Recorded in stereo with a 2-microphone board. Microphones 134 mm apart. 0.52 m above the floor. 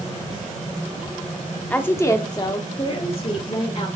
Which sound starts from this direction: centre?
A woman speaking, at 1.7 s.